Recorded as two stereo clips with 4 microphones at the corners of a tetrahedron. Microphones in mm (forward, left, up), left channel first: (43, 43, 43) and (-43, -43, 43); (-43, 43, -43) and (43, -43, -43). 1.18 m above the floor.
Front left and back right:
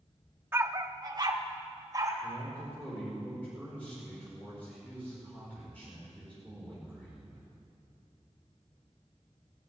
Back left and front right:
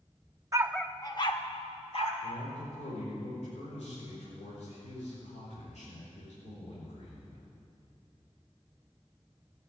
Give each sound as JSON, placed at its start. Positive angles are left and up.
{"t": 0.5, "sound": "a dog barking", "azimuth_deg": -85, "distance_m": 0.7}
{"t": 2.2, "sound": "a man speaking", "azimuth_deg": 120, "distance_m": 4.5}